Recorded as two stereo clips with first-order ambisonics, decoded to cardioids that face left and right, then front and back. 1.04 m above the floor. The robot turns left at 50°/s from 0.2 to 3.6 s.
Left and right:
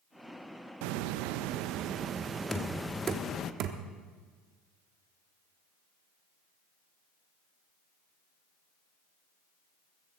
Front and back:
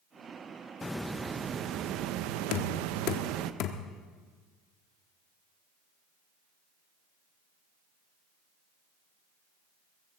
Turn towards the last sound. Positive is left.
turn(degrees=-45)